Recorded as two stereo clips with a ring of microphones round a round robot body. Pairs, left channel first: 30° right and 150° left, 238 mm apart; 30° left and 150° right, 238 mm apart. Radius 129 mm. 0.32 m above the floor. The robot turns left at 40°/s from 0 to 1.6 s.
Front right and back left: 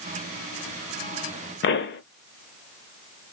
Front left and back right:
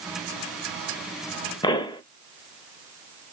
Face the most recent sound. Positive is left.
turn(degrees=-35)